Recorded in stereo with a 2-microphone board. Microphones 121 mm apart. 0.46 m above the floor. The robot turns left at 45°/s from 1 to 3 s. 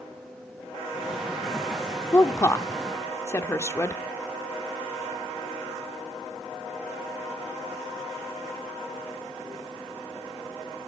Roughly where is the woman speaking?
Left.